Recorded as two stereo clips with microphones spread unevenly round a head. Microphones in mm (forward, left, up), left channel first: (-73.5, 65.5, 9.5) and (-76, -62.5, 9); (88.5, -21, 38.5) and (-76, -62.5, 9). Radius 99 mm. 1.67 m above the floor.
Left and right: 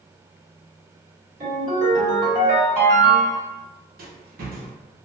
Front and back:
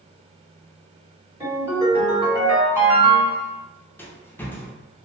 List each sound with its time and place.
1.4 s a ringtone: 85° right, 1.7 m
4.0 s a rattle: 60° right, 0.6 m